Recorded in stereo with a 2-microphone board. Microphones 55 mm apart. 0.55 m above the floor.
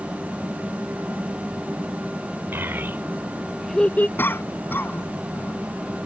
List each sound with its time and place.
2.5 s a child speaking: 45° right (ahead or behind); by 4.1 s 35° left (ahead or behind)
4.2 s a cough: 40° left (ahead or behind)